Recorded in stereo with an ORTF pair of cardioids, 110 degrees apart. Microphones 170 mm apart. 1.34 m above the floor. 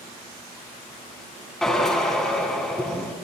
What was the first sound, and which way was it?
A drill, 5° left.